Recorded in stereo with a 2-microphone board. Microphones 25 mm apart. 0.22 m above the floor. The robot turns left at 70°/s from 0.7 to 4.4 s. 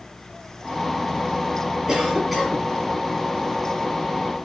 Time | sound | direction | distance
1.9 | a cough | 150° right | 1.7 m